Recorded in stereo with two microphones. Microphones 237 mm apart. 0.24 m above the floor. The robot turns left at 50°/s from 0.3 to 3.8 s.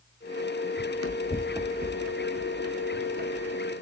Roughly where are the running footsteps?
Left.